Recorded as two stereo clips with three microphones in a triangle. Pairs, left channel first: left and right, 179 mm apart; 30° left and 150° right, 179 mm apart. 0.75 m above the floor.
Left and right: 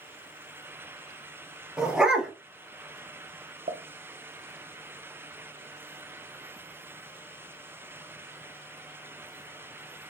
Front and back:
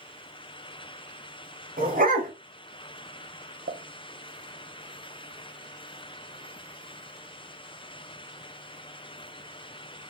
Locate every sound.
1.8 s a dog barking: 175° right, 0.8 m
3.7 s a pop: 135° right, 0.5 m